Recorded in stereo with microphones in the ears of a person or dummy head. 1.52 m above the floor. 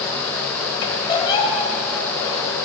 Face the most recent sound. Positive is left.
turn(degrees=25)  # may be behind; listen again after turning